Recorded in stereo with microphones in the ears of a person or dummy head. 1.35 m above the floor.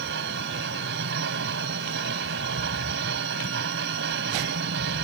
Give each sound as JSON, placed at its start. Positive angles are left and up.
{"t": 0.0, "sound": "a machine running", "side_deg": -65}